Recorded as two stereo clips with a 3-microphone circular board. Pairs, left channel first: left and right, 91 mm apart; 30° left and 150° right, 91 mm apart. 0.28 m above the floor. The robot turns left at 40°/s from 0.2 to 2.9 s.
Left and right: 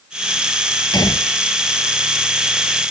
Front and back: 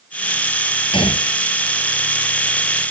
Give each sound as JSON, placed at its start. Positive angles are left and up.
{"t": 0.9, "sound": "a gunshot", "azimuth_deg": 50}